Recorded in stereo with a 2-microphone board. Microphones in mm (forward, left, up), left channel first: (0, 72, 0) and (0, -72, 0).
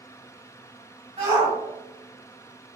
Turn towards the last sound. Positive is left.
turn(degrees=-50)  # may be behind; listen again after turning